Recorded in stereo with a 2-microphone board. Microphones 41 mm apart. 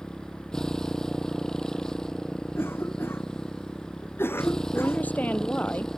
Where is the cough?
80° left.